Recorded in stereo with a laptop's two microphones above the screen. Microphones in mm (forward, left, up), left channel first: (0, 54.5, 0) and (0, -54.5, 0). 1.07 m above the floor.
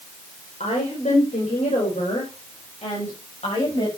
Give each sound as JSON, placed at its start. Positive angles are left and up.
{"t": 0.6, "sound": "a woman speaking", "side_deg": 85, "distance_m": 4.0}